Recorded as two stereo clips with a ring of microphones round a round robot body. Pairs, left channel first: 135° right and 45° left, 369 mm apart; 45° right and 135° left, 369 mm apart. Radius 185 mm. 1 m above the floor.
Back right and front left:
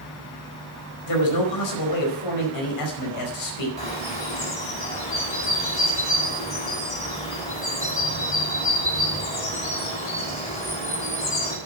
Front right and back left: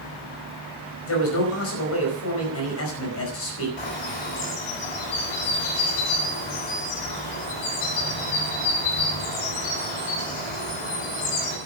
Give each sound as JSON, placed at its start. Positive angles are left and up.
{"t": 1.1, "sound": "a man speaking", "azimuth_deg": -100, "distance_m": 4.5}
{"t": 3.8, "sound": "a bird", "azimuth_deg": -60, "distance_m": 7.0}